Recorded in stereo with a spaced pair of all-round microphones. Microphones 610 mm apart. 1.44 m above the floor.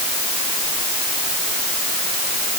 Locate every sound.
Only background noise.